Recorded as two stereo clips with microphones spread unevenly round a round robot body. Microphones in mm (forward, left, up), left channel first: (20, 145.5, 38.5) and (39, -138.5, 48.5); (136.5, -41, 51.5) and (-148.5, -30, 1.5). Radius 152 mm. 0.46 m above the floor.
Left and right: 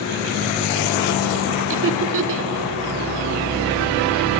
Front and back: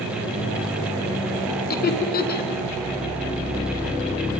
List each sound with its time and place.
1.7 s laughter: 60° right, 1.8 m